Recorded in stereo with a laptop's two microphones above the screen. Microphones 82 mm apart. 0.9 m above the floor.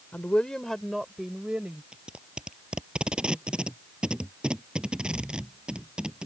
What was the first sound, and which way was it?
A woman speaking, 20° left (ahead or behind).